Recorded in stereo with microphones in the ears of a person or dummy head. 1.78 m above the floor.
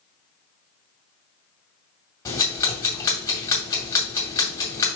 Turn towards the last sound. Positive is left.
turn(degrees=25)  # may be behind; listen again after turning